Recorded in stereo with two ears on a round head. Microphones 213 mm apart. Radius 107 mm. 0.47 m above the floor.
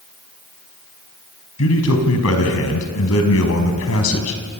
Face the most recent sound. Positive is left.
turn(degrees=70)  # may be behind; listen again after turning